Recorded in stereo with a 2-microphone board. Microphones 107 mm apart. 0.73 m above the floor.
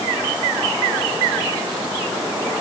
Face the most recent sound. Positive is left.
No sound to turn to.